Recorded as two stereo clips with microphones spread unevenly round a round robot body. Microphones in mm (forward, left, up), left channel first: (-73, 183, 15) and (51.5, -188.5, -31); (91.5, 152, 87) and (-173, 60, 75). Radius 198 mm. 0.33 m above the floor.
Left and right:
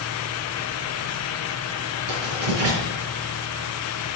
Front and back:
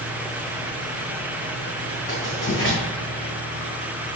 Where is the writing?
60° right, 3.5 m.